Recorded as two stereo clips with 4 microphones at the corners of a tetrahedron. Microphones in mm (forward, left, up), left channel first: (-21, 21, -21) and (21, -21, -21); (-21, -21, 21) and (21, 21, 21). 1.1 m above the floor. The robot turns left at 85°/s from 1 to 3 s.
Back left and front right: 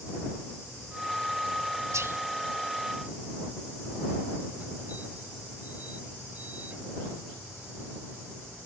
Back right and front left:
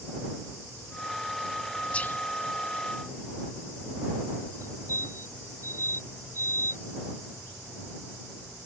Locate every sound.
1.9 s whispering: 65° right; by 2.2 s 85° right
4.6 s a fire alarm: 15° left